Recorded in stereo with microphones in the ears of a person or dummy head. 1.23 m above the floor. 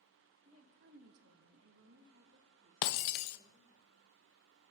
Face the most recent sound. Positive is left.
turn(degrees=65)  # may be behind; listen again after turning